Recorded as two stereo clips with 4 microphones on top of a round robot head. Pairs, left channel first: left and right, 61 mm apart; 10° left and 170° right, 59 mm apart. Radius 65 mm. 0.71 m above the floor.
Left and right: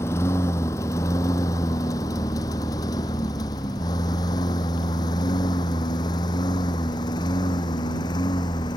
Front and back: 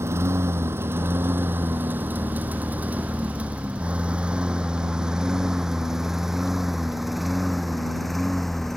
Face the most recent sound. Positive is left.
turn(degrees=95)